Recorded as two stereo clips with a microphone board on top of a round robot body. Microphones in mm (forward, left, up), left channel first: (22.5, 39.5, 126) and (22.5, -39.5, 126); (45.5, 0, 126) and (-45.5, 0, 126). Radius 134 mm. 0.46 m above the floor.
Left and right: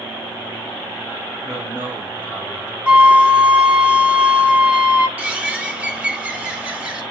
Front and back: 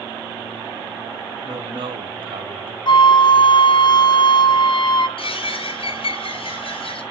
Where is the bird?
15° right, 1.8 m.